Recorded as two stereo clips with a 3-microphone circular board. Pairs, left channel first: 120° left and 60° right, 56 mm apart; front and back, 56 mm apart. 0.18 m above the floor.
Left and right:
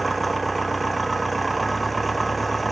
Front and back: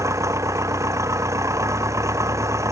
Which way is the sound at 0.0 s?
150° right.